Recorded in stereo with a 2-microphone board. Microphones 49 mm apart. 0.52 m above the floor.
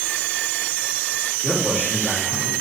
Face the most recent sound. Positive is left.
turn(degrees=15)  # may be behind; listen again after turning